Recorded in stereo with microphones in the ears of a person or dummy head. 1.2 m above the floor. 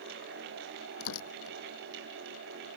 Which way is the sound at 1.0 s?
75° left (ahead or behind).